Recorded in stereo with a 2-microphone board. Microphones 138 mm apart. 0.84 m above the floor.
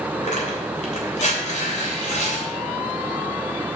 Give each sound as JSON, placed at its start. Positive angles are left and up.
{"t": 0.2, "sound": "tearing paper", "side_deg": 60, "distance_m": 3.0}